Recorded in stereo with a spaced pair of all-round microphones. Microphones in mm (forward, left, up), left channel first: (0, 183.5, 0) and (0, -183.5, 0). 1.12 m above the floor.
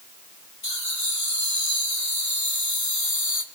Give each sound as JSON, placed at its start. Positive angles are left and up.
{"t": 0.6, "sound": "laughter", "side_deg": 50, "distance_m": 4.0}